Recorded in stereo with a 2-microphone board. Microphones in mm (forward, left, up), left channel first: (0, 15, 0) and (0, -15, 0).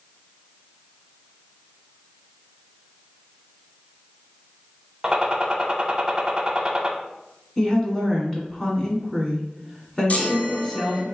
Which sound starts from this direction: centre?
A woman speaking, at 7.6 s.